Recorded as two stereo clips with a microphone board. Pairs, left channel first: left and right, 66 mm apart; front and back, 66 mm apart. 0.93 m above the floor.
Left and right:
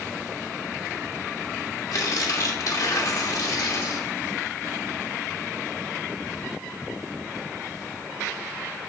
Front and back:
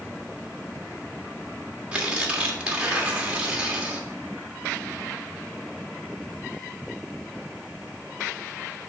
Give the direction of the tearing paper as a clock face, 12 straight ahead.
8 o'clock.